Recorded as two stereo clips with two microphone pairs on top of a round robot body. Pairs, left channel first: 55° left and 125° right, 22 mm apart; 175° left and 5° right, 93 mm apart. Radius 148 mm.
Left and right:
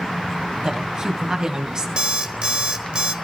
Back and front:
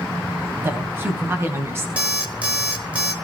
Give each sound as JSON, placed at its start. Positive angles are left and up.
{"t": 0.6, "sound": "a woman speaking", "azimuth_deg": -70, "distance_m": 2.5}
{"t": 2.0, "sound": "an alarm clock", "azimuth_deg": -80, "distance_m": 2.5}